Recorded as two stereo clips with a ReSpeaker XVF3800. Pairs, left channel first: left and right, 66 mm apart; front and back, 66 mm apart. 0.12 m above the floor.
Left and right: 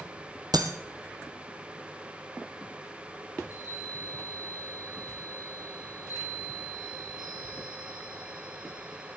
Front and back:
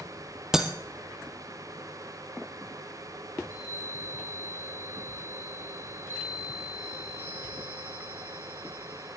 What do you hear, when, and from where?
0.5 s breaking glass: 95° right, 1.4 m
3.4 s a chime: 60° left, 7.5 m